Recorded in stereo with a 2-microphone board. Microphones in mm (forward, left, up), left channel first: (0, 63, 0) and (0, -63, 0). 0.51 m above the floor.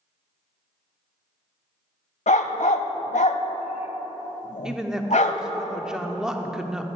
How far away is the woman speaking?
About 0.8 m.